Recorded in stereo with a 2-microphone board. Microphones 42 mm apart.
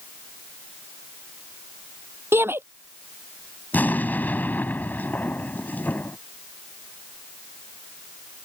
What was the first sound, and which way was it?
A shout, 70° right (ahead or behind).